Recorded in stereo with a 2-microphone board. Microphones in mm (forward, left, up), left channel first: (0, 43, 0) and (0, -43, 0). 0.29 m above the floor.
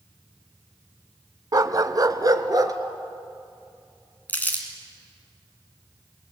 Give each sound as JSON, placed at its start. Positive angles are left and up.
{"t": 1.5, "sound": "a dog barking", "side_deg": -50, "distance_m": 0.8}
{"t": 4.3, "sound": "crumpling", "side_deg": 20, "distance_m": 3.0}